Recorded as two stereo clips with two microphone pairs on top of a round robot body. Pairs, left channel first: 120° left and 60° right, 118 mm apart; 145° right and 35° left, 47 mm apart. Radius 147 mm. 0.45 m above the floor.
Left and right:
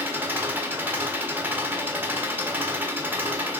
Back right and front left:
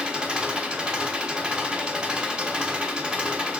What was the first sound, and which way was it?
An engine running, 10° right.